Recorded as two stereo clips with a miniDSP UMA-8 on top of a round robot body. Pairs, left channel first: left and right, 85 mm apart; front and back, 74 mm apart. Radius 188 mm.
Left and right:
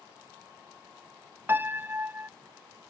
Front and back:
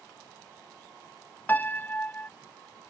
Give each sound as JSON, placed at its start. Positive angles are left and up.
{"t": 1.5, "sound": "a piano", "azimuth_deg": -45}